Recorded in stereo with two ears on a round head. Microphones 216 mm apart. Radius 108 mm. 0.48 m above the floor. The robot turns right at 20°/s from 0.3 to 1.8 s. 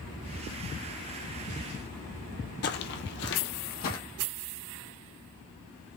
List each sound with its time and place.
2.6 s footsteps: 45° left (ahead or behind), 0.6 m; by 4.0 s 40° left (ahead or behind), 0.9 m